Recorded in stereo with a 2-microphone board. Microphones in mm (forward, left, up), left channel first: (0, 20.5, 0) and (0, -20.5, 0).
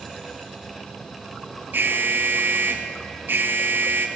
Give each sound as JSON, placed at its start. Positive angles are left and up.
{"t": 1.7, "sound": "an alarm", "side_deg": -50, "distance_m": 2.5}